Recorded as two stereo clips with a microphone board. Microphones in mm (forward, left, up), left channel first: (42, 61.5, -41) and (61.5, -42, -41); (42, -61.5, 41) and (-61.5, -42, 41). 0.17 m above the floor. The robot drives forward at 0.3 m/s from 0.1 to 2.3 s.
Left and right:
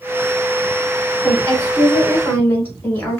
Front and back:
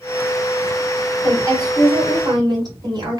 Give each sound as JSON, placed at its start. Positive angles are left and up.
{"t": 1.2, "sound": "a woman speaking", "azimuth_deg": 155, "distance_m": 1.4}